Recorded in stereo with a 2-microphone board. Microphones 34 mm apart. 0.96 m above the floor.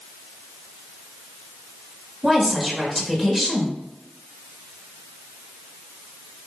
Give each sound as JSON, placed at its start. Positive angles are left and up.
{"t": 2.2, "sound": "a woman speaking", "side_deg": -5, "distance_m": 2.0}